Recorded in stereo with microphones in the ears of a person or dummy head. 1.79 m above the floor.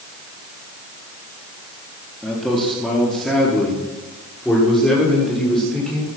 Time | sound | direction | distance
2.2 | a man speaking | 5° left (ahead or behind) | 3.5 m